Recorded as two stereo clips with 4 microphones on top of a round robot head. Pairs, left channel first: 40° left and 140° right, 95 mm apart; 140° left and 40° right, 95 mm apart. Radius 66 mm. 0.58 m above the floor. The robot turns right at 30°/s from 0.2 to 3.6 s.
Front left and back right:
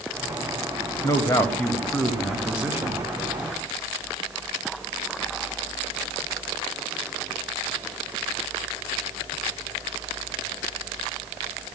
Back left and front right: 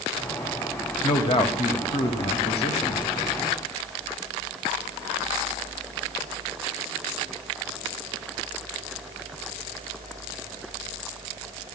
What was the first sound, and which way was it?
A man speaking, 95° left.